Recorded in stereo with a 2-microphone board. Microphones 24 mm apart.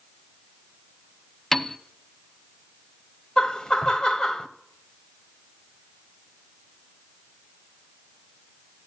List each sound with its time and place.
1.5 s a piano: 15° left (ahead or behind), 0.7 m
3.4 s laughter: 30° left (ahead or behind), 1.1 m